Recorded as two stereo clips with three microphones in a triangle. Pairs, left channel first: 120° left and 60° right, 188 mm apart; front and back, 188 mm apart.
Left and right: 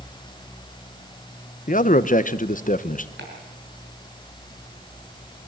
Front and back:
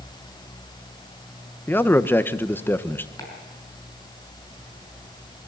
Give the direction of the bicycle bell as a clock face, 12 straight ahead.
No bicycle bell in this recording.